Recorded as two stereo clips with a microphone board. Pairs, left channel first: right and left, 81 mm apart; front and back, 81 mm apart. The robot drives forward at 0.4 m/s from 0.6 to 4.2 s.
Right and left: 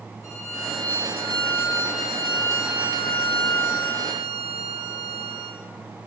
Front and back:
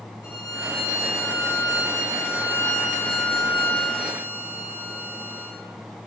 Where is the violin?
40° right, 3.5 m; by 5.6 s 65° right, 3 m.